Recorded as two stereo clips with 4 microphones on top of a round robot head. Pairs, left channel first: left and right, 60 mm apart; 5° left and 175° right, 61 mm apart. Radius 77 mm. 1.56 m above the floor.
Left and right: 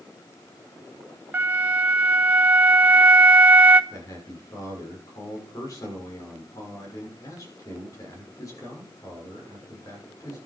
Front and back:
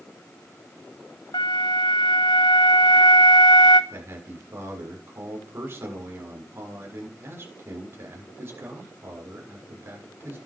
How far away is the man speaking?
About 6.5 m.